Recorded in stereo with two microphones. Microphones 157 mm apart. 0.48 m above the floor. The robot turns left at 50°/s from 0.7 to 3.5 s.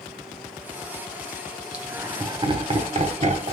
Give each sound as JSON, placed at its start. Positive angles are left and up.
{"t": 1.7, "sound": "laughter", "side_deg": -10, "distance_m": 1.1}